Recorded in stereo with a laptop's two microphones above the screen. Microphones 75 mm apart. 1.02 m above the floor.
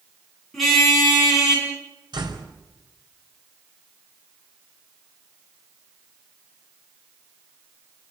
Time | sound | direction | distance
0.5 | a car horn | centre (ahead or behind) | 6 m
2.1 | a door slam | 90° right | 4 m